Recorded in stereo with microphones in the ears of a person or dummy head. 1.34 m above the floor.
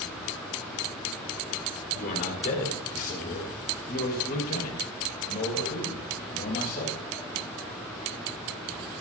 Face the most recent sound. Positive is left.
turn(degrees=55)  # may be behind; listen again after turning